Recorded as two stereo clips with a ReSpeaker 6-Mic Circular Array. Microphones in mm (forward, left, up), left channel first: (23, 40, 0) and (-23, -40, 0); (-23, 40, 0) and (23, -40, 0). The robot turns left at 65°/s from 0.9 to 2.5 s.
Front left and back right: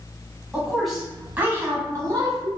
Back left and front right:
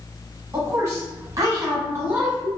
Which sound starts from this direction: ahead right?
A woman speaking, at 0.5 s.